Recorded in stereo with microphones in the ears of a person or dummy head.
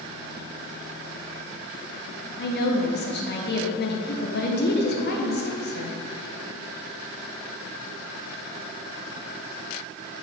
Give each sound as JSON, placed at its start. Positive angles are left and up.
{"t": 2.4, "sound": "a woman speaking", "side_deg": 45, "distance_m": 0.7}